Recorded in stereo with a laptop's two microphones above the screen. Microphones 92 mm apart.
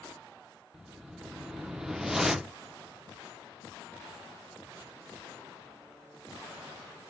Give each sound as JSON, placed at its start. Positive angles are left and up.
{"t": 0.7, "sound": "a whoosh", "side_deg": -5, "distance_m": 0.6}